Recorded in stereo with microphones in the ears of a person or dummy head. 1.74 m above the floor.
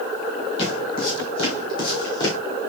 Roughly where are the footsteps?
Left.